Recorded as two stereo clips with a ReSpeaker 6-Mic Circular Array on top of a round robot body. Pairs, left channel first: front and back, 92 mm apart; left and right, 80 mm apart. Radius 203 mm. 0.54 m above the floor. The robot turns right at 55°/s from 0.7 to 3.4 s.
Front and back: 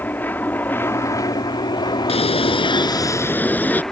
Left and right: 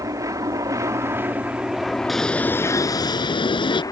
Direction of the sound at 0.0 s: 65° right.